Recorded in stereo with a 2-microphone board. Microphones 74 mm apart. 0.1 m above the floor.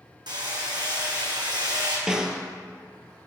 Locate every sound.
0.3 s hammering: 80° right, 1.6 m
2.1 s a snare drum: 10° right (ahead or behind), 0.6 m